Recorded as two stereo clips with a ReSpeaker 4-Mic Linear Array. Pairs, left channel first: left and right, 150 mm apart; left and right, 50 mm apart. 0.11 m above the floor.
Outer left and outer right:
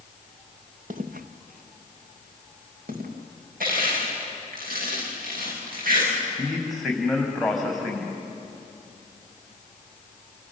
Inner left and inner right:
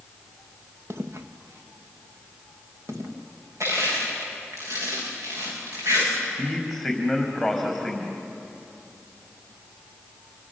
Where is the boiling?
I don't hear boiling.